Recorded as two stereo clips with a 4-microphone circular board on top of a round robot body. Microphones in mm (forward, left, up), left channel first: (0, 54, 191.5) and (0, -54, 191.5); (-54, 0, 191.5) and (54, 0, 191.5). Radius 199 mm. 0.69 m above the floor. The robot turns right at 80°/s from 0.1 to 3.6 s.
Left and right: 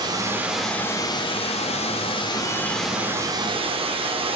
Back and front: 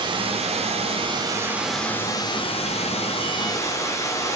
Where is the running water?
40° right, 2 m; by 4.4 s 120° right, 2 m.